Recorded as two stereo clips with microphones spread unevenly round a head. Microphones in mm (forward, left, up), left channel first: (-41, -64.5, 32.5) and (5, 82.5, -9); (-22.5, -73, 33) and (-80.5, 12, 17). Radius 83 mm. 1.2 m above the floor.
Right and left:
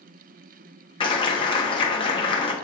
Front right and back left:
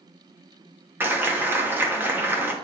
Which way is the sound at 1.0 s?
165° right.